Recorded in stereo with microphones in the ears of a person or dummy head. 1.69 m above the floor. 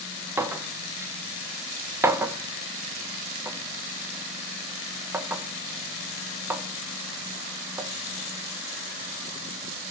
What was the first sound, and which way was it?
A clink, 15° right (ahead or behind).